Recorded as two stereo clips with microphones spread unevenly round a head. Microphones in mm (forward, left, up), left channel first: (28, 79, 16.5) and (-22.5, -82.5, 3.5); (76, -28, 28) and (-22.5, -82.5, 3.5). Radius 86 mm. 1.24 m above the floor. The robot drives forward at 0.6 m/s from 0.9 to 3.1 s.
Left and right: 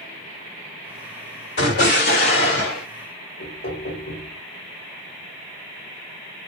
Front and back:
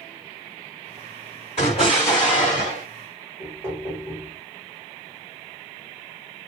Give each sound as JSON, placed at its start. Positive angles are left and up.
{"t": 1.6, "sound": "an explosion", "azimuth_deg": 65, "distance_m": 1.6}
{"t": 3.4, "sound": "knocking", "azimuth_deg": 110, "distance_m": 1.1}